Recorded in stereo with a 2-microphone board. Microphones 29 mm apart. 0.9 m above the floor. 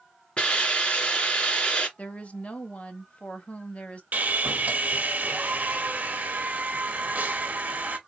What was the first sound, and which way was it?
A hiss, 30° left (ahead or behind).